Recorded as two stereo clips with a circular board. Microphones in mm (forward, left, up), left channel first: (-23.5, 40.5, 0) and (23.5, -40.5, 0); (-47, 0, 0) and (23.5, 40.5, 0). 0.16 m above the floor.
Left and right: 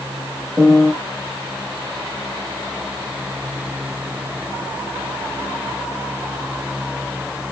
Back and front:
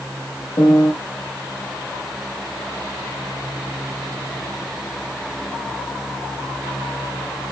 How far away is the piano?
About 3.5 m.